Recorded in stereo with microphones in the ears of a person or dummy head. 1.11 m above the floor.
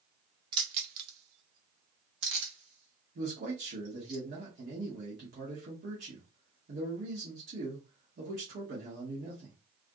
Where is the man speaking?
45° right (ahead or behind), 1.2 m.